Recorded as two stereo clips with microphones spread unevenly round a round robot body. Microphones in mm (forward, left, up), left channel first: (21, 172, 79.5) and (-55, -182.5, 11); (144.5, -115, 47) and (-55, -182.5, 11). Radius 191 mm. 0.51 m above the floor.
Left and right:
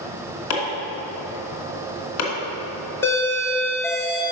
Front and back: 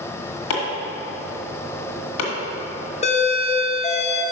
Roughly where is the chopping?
Ahead left.